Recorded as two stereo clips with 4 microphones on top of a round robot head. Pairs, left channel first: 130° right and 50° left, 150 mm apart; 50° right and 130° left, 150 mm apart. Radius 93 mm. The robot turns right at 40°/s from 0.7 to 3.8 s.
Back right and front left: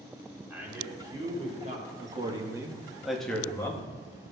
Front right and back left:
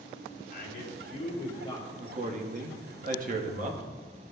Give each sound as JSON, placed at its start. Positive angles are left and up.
{"t": 0.5, "sound": "a man speaking", "azimuth_deg": -30, "distance_m": 2.5}
{"t": 2.0, "sound": "a man speaking", "azimuth_deg": 90, "distance_m": 1.1}